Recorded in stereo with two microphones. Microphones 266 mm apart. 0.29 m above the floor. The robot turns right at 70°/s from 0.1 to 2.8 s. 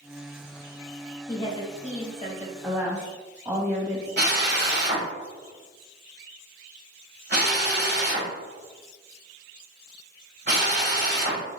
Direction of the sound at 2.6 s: 5° right (ahead or behind).